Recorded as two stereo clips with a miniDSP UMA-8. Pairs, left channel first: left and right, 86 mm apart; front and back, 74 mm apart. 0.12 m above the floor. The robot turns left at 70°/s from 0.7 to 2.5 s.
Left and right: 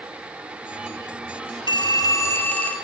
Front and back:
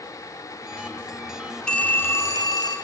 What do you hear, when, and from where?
1.7 s a phone ringing: 80° left, 1.6 m; by 2.8 s 20° left, 1.6 m